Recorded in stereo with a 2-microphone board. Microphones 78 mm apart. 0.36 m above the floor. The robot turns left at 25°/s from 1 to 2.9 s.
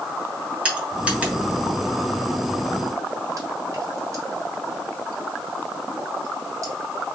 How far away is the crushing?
About 1.6 m.